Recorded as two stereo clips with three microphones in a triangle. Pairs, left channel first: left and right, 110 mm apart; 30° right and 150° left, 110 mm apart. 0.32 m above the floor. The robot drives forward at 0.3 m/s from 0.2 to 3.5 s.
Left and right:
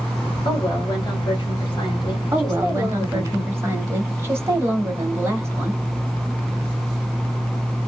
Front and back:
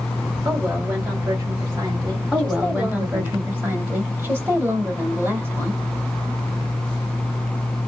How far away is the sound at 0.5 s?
About 1.9 m.